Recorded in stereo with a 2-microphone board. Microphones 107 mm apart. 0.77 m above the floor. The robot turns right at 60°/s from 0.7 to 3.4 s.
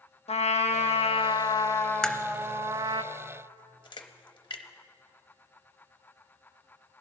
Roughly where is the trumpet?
Left.